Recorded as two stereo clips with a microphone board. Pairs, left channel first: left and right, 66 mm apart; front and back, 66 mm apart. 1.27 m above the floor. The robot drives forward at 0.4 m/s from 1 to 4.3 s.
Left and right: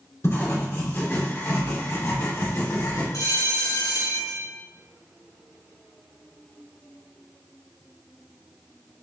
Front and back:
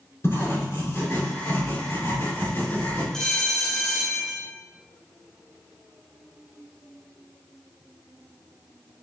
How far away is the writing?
About 3.5 m.